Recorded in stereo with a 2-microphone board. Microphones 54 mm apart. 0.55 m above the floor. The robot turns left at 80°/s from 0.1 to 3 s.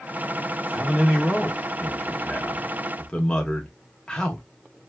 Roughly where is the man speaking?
Centre.